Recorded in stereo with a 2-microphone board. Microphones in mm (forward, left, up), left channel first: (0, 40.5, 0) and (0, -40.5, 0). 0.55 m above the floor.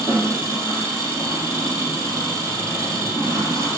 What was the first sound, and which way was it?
An engine running, 30° right (ahead or behind).